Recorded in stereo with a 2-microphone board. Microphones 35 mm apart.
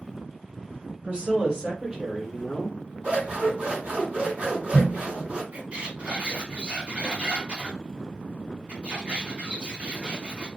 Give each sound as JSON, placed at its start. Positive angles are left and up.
{"t": 1.0, "sound": "a woman speaking", "side_deg": -45, "distance_m": 1.6}
{"t": 3.0, "sound": "scissors", "side_deg": -40, "distance_m": 1.8}
{"t": 5.5, "sound": "a squeak", "side_deg": -40, "distance_m": 1.9}